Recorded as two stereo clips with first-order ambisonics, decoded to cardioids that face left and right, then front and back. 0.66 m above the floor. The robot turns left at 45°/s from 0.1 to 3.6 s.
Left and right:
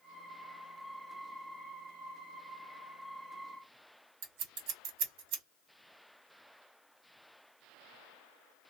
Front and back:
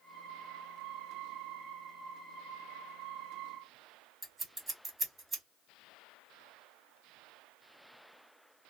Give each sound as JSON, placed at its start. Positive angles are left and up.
{"t": 4.2, "sound": "scissors", "azimuth_deg": -105, "distance_m": 1.8}